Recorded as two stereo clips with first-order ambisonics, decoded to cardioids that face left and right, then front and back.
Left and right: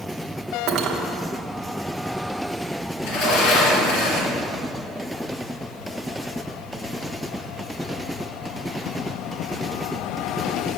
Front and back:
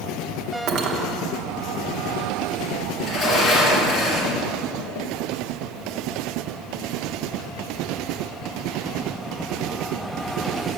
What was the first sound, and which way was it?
Cutlery clinking, 135° right.